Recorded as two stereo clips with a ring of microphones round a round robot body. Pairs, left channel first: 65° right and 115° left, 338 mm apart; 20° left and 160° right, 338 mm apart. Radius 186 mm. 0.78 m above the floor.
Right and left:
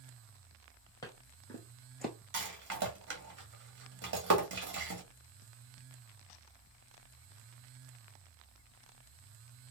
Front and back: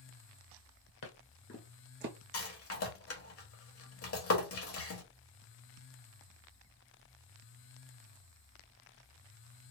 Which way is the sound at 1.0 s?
10° left.